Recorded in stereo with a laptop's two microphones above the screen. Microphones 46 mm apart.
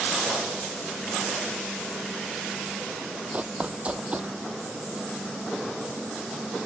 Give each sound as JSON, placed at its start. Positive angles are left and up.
{"t": 3.3, "sound": "running footsteps", "side_deg": -30}